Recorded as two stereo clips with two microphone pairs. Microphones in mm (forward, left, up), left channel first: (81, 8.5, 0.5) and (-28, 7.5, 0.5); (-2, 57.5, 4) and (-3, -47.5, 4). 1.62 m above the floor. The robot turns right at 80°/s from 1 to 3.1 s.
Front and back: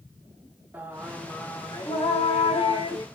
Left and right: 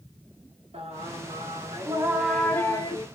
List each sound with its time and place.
0.7 s singing: 105° right, 0.9 m; by 3.0 s 60° left, 0.9 m